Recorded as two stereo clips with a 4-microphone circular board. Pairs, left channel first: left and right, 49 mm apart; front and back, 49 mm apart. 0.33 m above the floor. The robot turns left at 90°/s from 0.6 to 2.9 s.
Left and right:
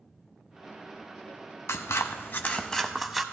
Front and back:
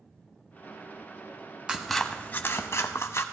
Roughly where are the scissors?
Left.